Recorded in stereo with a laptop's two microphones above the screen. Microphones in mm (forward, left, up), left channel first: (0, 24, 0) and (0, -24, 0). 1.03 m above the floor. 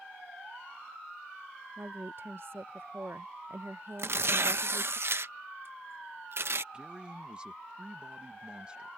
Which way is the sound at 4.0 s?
55° right (ahead or behind).